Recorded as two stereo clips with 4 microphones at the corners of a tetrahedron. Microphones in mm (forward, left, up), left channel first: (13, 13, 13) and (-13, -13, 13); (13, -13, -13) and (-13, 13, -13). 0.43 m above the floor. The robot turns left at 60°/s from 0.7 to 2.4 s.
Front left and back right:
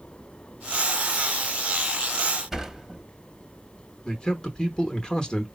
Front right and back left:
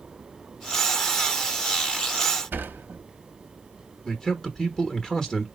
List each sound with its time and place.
2.5 s a sliding door: 145° left, 0.7 m
4.0 s a man speaking: 5° left, 1.0 m